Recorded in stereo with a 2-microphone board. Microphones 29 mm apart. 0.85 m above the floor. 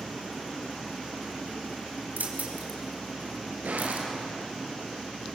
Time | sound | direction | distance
2.2 | keys jangling | 85° right | 4.5 m
3.6 | a gunshot | 75° right (ahead or behind) | 7 m